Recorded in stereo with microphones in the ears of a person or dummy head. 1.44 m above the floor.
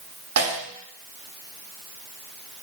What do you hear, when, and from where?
0.4 s a snare drum: 80° right, 2 m